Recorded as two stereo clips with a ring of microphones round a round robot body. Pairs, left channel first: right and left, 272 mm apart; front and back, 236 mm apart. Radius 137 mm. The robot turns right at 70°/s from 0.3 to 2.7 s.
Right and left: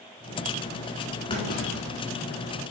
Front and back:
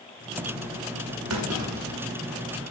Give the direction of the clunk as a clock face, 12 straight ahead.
5 o'clock.